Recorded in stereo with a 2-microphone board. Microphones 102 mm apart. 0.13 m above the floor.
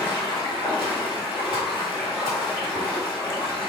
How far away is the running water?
About 1.5 m.